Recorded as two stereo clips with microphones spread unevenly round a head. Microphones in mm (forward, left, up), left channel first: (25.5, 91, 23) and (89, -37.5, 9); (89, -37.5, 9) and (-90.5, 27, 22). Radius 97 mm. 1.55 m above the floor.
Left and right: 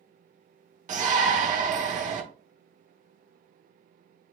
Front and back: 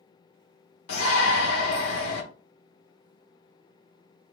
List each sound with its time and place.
0.9 s a shout: 30° right, 1.4 m